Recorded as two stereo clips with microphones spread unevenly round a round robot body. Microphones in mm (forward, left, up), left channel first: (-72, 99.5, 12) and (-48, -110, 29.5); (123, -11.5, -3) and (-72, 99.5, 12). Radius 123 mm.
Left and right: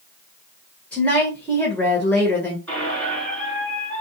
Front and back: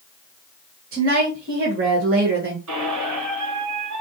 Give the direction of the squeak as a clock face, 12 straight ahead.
6 o'clock.